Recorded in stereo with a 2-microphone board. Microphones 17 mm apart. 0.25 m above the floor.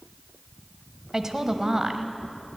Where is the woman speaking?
20° right (ahead or behind), 1.0 m.